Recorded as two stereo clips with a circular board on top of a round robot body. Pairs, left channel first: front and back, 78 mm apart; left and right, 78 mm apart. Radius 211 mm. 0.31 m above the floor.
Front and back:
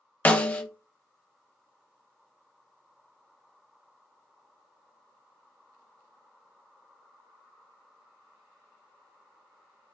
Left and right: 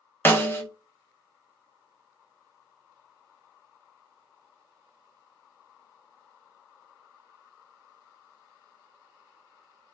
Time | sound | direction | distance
0.2 | a snare drum | 55° left | 0.9 m